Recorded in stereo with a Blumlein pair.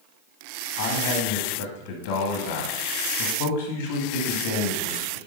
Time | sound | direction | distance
0.8 | a man speaking | 55° left | 1.2 m